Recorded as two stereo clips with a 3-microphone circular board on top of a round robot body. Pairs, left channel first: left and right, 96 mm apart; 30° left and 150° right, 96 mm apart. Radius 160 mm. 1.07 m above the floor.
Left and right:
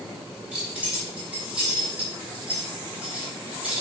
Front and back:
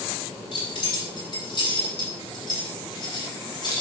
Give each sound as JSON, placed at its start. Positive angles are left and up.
{"t": 0.5, "sound": "keys jangling", "azimuth_deg": -10, "distance_m": 6.5}